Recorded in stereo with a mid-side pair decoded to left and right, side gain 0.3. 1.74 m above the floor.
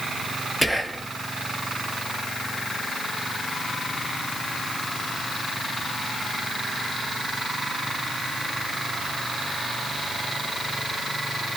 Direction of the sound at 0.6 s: 5° left.